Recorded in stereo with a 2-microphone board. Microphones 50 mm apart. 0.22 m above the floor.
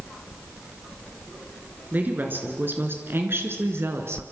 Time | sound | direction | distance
1.9 | a woman speaking | 40° right (ahead or behind) | 3.5 m